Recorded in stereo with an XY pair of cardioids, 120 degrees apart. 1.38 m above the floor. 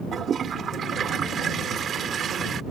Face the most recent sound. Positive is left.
turn(degrees=-45)